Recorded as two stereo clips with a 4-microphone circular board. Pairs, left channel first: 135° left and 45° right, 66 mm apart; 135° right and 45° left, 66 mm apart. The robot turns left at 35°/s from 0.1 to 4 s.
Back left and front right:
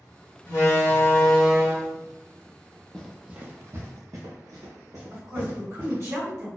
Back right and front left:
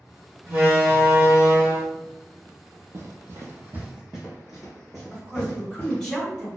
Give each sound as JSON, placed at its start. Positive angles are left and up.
{"t": 0.5, "sound": "a door slam", "azimuth_deg": 110, "distance_m": 1.6}
{"t": 2.9, "sound": "running footsteps", "azimuth_deg": 60, "distance_m": 0.6}
{"t": 5.1, "sound": "a woman speaking", "azimuth_deg": -50, "distance_m": 2.0}